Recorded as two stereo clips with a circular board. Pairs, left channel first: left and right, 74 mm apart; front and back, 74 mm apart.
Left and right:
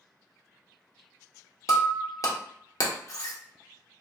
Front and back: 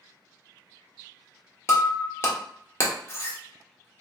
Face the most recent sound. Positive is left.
turn(degrees=55)